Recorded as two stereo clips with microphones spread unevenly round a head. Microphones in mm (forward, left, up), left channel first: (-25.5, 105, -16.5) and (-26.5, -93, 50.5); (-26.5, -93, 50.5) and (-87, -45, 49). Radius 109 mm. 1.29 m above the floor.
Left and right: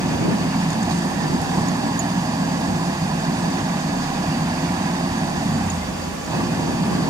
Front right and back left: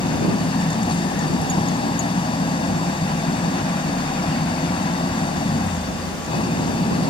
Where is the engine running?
20° right.